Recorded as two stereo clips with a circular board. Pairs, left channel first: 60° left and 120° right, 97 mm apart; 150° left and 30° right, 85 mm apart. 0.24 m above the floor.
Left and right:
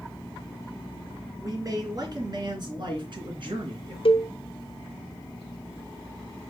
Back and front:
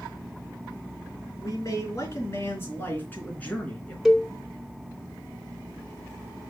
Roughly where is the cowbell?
Ahead left.